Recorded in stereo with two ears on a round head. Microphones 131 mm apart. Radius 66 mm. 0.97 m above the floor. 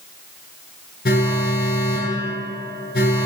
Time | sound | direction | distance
1.1 | an alarm | 70° left (ahead or behind) | 9 m